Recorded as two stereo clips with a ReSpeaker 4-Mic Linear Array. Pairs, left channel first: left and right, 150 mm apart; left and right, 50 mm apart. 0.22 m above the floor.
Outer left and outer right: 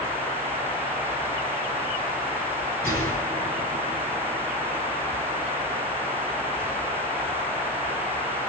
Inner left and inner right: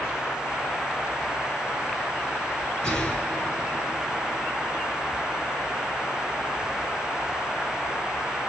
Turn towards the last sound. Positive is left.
turn(degrees=15)  # may be behind; listen again after turning